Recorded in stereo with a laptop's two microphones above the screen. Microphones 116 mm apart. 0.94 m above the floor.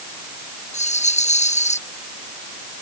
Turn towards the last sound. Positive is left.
turn(degrees=80)